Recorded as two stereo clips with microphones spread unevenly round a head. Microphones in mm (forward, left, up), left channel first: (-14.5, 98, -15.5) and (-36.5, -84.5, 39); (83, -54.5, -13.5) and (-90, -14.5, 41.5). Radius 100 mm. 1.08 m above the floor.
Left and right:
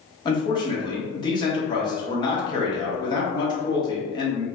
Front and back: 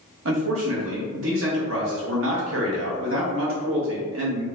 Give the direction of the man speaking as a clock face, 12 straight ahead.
7 o'clock.